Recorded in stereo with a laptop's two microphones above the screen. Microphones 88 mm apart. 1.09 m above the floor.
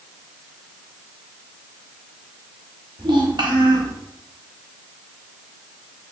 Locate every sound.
3.0 s a child speaking: 60° right (ahead or behind), 1.2 m